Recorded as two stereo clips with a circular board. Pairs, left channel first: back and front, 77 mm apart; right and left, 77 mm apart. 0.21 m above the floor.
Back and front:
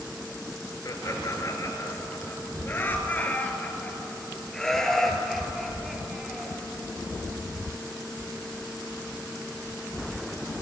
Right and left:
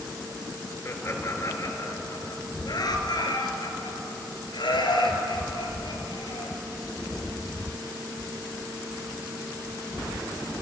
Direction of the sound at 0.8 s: 140° right.